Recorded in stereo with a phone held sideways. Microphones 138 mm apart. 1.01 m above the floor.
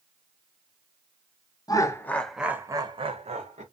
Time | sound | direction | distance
1.7 | laughter | 30° left (ahead or behind) | 0.7 m